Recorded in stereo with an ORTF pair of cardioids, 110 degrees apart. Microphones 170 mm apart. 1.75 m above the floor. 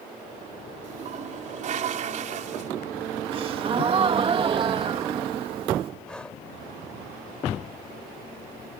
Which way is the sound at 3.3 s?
35° right.